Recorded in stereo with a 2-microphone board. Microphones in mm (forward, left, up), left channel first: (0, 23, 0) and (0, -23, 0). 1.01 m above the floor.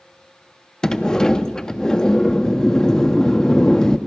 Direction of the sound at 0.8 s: 15° left (ahead or behind).